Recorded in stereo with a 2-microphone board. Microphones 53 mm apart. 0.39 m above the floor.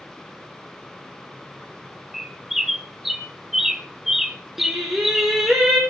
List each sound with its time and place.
2.1 s a bird: 5° right (ahead or behind), 1.1 m
4.6 s singing: 5° right (ahead or behind), 3.5 m